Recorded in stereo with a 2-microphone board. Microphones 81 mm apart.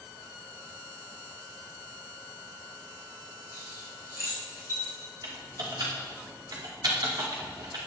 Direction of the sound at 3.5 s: 35° right (ahead or behind).